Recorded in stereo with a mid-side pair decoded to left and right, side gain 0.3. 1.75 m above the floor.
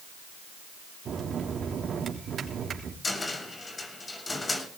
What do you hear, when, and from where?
1.1 s a bell: 70° right, 3.5 m
3.0 s a cupboard door: 40° left, 6 m